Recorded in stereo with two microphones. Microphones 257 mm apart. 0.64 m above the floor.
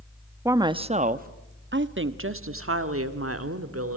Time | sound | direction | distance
0.5 | a woman speaking | 10° right (ahead or behind) | 0.8 m